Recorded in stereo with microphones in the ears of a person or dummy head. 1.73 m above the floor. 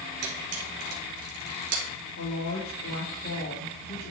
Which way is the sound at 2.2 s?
85° left.